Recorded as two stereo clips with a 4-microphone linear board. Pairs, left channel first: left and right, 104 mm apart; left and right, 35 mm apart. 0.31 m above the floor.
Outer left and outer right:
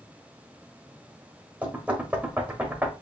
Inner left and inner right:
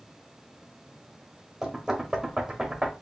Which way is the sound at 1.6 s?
15° right (ahead or behind).